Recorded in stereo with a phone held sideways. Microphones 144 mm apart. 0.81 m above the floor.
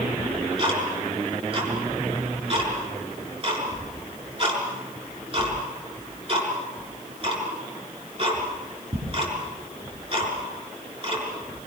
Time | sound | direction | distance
0.2 | ticking | 40° right (ahead or behind) | 6.5 m